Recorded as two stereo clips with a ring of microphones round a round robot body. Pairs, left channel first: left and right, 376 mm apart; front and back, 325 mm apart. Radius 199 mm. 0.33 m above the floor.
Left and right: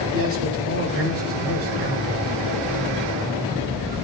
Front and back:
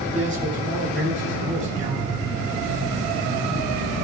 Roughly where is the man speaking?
Behind right.